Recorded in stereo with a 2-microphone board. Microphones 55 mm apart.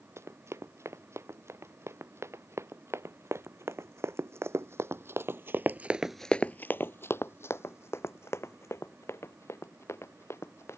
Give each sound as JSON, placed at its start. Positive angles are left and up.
{"t": 0.2, "sound": "running footsteps", "side_deg": -60}